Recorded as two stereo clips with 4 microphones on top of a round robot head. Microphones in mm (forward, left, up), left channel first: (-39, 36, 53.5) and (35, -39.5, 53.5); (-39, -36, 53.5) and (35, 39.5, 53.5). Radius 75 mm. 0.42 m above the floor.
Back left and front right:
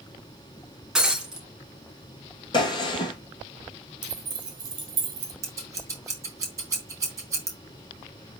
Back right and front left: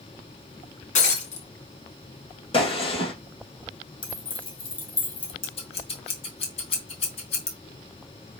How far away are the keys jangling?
About 2.5 m.